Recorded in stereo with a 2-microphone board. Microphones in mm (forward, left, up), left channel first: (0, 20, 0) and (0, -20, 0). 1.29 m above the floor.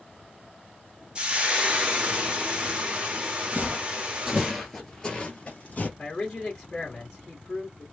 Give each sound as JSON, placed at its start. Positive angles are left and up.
{"t": 1.1, "sound": "frying", "side_deg": -25, "distance_m": 1.1}
{"t": 3.5, "sound": "footsteps", "side_deg": -35, "distance_m": 1.6}
{"t": 6.0, "sound": "a man speaking", "side_deg": 15, "distance_m": 1.6}